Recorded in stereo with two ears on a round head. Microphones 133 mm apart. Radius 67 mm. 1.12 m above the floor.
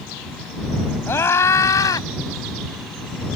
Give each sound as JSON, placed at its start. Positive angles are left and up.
{"t": 1.1, "sound": "a scream", "side_deg": 15}